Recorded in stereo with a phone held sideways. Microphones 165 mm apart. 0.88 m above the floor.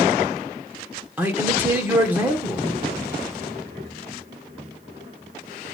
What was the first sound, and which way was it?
A man speaking, 10° right (ahead or behind).